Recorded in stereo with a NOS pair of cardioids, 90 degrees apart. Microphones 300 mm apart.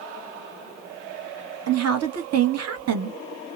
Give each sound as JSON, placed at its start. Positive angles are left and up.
{"t": 1.7, "sound": "a woman speaking", "azimuth_deg": -60, "distance_m": 1.0}